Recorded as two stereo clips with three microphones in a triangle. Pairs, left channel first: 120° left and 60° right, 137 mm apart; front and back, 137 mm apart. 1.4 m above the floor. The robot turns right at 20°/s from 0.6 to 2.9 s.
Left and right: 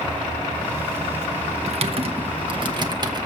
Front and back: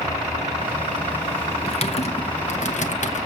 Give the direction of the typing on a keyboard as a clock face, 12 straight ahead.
1 o'clock.